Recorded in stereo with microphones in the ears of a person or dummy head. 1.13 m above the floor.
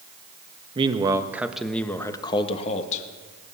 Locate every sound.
0.8 s a man speaking: 25° right (ahead or behind), 1.3 m; by 3.0 s 45° left (ahead or behind), 1.6 m